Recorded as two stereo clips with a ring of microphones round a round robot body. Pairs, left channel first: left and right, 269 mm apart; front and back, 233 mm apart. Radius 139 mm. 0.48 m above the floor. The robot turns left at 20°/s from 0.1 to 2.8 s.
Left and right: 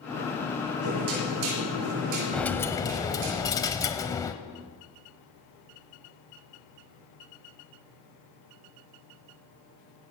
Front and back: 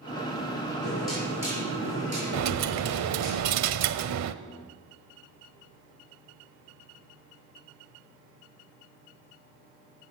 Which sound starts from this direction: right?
Knocking, at 0.8 s.